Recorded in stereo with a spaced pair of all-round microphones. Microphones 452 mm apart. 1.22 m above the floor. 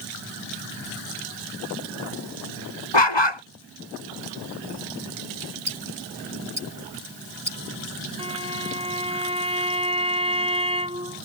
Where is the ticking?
50° right (ahead or behind).